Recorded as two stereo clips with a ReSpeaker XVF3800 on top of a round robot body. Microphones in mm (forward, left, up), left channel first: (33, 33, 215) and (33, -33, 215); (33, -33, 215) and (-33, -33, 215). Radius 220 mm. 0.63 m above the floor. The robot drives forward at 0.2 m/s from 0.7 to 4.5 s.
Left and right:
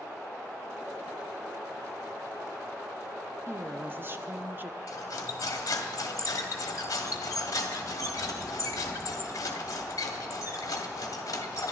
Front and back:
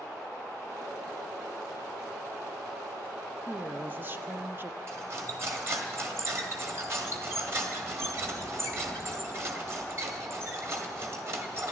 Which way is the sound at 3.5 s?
125° right.